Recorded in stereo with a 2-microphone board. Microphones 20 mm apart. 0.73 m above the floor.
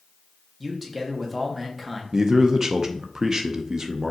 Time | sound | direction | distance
0.6 | a man speaking | 5° right (ahead or behind) | 1.2 m
2.1 | a man speaking | 30° right (ahead or behind) | 0.5 m